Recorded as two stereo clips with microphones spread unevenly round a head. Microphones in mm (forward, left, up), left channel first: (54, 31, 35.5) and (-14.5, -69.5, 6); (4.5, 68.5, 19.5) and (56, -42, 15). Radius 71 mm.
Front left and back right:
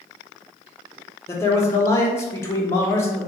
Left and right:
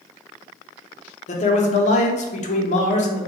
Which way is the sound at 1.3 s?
135° left.